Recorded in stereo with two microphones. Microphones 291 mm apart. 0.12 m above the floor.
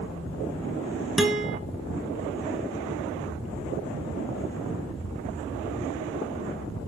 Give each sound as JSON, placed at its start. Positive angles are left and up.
{"t": 1.2, "sound": "a guitar", "side_deg": 0, "distance_m": 1.6}